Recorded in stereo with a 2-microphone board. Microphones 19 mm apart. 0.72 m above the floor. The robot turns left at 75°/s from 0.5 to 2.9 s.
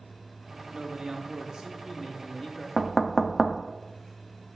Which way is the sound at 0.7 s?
65° right.